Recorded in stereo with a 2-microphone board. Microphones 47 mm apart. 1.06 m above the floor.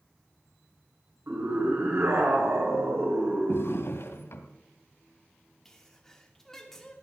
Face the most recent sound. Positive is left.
turn(degrees=10)  # may be behind; listen again after turning